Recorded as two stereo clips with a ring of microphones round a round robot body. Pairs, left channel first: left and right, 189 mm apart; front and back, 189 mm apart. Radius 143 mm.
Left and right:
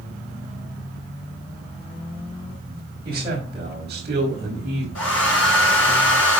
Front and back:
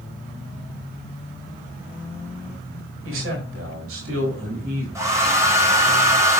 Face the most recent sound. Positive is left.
turn(degrees=105)